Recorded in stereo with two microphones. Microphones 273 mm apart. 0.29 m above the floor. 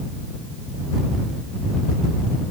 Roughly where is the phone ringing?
No phone ringing in this recording.